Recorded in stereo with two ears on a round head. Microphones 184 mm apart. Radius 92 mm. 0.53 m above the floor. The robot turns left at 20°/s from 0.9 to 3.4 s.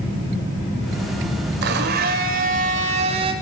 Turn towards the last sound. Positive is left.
turn(degrees=-150)